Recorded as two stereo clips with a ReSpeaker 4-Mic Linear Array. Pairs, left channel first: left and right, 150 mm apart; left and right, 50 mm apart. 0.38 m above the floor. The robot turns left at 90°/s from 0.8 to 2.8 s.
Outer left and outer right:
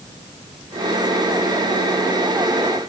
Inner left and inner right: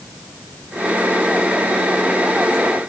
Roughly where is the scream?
I don't hear a scream.